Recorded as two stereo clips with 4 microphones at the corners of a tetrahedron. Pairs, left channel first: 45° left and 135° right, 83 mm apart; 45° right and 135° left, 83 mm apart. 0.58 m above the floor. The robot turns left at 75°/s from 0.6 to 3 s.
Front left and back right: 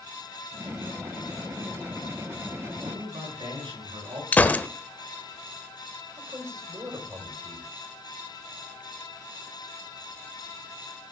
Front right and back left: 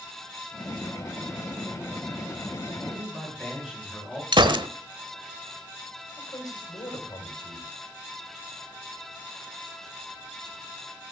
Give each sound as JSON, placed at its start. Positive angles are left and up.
{"t": 2.8, "sound": "a man speaking", "azimuth_deg": -125, "distance_m": 9.0}
{"t": 4.3, "sound": "a gunshot", "azimuth_deg": 115, "distance_m": 1.0}
{"t": 6.2, "sound": "a man speaking", "azimuth_deg": -85, "distance_m": 3.5}